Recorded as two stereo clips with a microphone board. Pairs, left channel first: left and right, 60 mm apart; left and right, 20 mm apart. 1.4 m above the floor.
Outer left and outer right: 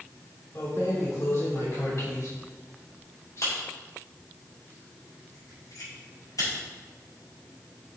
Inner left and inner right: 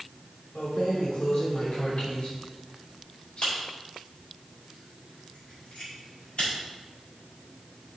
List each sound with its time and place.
0.6 s keys jangling: 50° left (ahead or behind), 3 m; by 6.5 s 70° left (ahead or behind), 6.5 m